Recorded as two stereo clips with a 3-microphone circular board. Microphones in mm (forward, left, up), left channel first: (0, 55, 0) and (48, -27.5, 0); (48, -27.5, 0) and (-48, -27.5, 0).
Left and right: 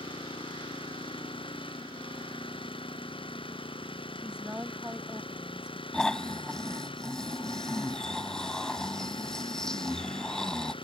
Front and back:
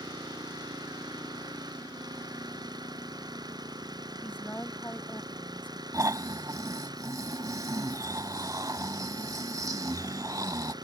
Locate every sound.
0.0 s an engine running: 140° left
4.2 s a woman speaking: 5° right
5.9 s snoring: 160° right